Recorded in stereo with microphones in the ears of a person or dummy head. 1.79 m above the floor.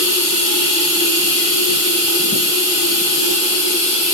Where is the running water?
35° right (ahead or behind), 1.7 m.